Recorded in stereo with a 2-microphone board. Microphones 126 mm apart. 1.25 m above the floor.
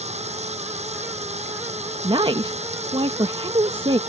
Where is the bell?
No bell in this recording.